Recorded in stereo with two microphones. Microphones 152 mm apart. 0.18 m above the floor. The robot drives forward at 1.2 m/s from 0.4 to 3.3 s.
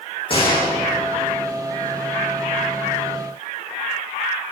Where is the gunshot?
35° left (ahead or behind), 8 m; by 0.7 s 40° left (ahead or behind), 8 m.